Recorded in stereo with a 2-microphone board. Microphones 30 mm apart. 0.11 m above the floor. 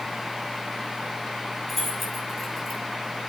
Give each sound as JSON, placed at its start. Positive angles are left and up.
{"t": 1.7, "sound": "keys jangling", "side_deg": 5, "distance_m": 4.5}